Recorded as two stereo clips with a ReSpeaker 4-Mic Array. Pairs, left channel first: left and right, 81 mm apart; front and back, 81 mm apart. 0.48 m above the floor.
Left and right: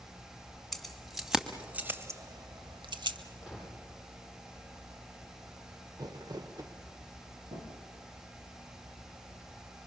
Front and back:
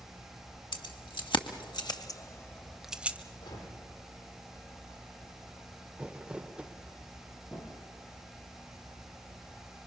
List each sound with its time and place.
0.7 s keys jangling: 5° left, 2.5 m; by 3.2 s 110° right, 1.4 m
3.4 s a gunshot: 10° right, 8.5 m
6.0 s crumpling: 105° right, 1.4 m
7.5 s a drawer: 60° right, 6.5 m